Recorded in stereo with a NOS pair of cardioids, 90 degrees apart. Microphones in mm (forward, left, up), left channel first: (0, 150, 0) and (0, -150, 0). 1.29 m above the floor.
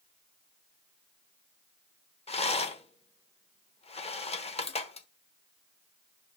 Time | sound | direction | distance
2.3 | a rattle | 20° left | 0.9 m